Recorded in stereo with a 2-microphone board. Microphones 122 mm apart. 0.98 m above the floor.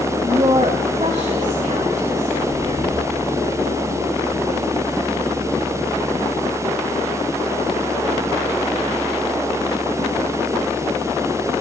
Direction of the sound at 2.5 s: 50° right (ahead or behind).